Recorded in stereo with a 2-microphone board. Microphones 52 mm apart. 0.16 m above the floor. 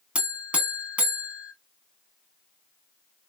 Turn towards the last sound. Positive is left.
turn(degrees=-25)  # may be behind; listen again after turning